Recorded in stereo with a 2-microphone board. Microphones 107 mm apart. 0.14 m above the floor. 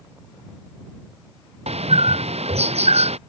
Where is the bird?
75° right (ahead or behind).